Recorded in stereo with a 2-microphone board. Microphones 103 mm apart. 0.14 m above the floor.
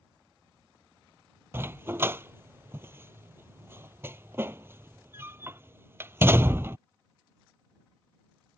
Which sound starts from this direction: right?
A dog barking, at 1.5 s.